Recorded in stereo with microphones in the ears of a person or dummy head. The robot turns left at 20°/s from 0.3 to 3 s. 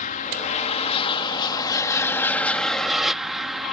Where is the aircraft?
40° left (ahead or behind); by 3.7 s centre (ahead or behind).